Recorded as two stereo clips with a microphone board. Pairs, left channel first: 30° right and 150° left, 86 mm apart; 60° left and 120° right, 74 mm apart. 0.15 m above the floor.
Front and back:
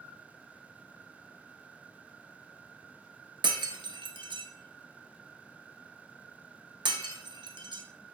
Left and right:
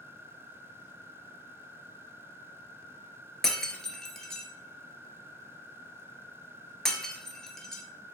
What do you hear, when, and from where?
3.4 s breaking glass: 145° left, 0.6 m